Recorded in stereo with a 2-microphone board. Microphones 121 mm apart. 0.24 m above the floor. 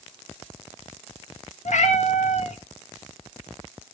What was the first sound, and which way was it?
A cat meowing, 75° left (ahead or behind).